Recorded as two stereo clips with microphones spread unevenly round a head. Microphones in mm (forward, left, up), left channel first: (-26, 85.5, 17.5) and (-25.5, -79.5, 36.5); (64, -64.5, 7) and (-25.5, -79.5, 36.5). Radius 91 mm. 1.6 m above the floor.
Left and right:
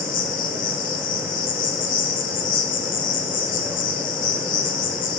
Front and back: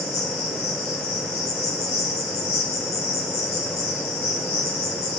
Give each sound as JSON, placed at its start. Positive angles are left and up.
{"t": 0.0, "sound": "an insect", "azimuth_deg": 45, "distance_m": 1.2}